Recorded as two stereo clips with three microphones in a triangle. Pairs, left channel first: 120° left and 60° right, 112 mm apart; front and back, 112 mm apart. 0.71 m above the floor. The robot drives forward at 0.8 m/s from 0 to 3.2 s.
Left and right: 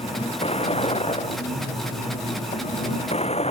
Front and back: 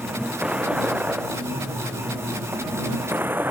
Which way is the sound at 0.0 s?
100° left.